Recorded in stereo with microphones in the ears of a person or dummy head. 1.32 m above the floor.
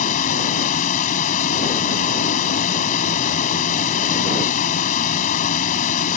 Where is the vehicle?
50° left (ahead or behind).